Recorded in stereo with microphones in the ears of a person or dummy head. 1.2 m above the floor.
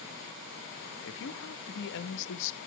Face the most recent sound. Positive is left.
turn(degrees=65)  # may be behind; listen again after turning